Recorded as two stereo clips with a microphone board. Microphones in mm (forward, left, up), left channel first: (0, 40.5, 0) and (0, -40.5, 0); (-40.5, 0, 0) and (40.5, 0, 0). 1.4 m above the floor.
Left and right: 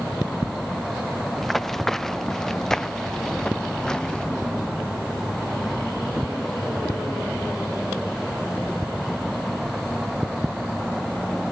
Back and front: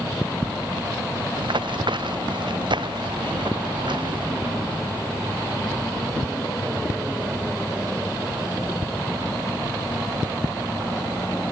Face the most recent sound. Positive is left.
turn(degrees=10)